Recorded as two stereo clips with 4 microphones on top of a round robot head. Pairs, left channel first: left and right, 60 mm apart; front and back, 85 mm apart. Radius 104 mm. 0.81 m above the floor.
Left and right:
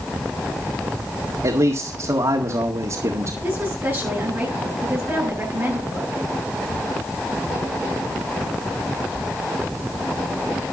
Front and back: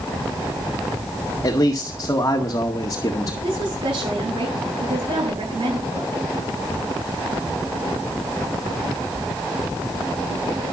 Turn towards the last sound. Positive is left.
turn(degrees=-155)